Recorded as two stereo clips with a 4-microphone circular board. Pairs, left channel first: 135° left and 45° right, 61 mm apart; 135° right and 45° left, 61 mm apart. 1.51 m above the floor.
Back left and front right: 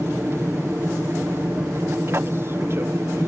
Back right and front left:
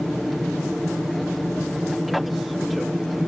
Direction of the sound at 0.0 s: 45° right.